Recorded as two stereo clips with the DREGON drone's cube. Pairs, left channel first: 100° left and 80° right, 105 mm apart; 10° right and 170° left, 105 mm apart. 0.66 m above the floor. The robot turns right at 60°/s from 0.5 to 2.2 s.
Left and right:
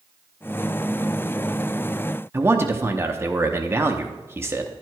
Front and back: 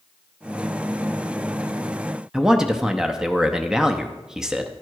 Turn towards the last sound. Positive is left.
turn(degrees=-110)